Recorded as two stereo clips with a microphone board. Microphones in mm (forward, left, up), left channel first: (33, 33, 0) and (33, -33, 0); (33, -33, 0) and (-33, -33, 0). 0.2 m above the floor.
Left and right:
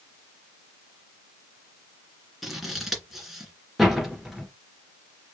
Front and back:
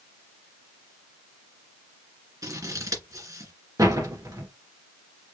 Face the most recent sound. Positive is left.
turn(degrees=-175)